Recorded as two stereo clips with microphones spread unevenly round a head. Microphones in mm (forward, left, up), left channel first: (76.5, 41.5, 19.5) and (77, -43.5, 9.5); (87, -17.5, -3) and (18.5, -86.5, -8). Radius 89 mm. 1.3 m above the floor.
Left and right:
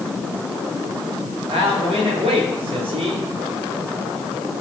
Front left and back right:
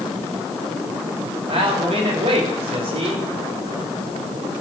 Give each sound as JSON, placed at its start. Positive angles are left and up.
{"t": 1.5, "sound": "a man speaking", "azimuth_deg": -120, "distance_m": 3.5}